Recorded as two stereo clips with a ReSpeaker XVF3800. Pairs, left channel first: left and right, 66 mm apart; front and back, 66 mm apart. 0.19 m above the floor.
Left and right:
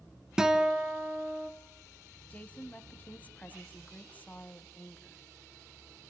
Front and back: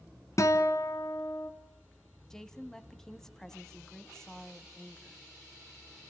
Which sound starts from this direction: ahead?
A guitar, at 0.4 s.